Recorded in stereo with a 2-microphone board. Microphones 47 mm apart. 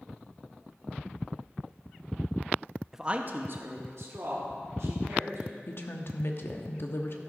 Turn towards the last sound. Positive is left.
turn(degrees=55)  # may be behind; listen again after turning